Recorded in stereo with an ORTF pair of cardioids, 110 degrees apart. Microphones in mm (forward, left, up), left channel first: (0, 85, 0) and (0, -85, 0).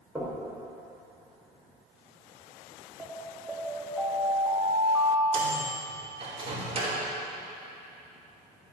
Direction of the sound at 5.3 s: 35° right.